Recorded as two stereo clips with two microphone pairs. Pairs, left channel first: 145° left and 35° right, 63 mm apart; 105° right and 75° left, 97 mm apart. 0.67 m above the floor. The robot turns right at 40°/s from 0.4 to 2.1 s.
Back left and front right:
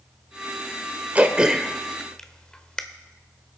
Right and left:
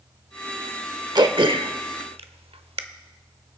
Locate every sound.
1.1 s throat clearing: 30° left, 0.8 m; by 2.8 s 65° left, 0.8 m